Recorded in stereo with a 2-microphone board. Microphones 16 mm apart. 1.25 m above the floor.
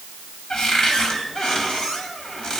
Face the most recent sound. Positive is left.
turn(degrees=60)  # may be behind; listen again after turning